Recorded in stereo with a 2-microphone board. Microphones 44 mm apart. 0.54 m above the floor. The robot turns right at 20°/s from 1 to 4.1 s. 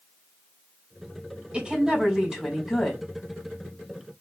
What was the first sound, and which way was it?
A woman speaking, 30° right (ahead or behind).